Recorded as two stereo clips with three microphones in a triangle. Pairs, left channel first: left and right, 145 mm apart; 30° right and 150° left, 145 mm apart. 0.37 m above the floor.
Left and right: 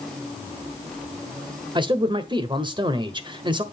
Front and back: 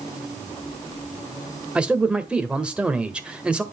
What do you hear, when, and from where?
1.8 s a man speaking: 130° right, 1.1 m